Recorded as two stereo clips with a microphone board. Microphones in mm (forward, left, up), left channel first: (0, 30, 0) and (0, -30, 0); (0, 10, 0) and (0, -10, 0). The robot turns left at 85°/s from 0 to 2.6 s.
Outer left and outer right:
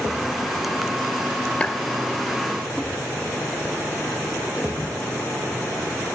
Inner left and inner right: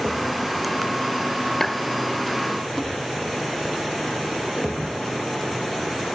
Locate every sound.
1.6 s a clap: 20° left (ahead or behind); by 1.9 s 40° left (ahead or behind)